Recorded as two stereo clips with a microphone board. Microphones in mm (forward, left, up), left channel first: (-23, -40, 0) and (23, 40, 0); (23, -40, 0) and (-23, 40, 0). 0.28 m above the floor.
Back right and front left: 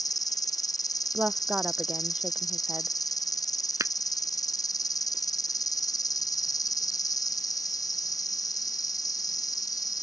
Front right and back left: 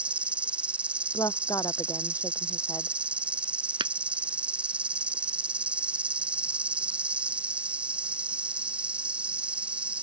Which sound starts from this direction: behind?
An insect, at 0.0 s.